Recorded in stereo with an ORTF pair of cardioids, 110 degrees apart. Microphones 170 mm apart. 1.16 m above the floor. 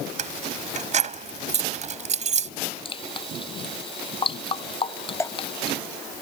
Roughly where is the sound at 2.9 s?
Ahead left.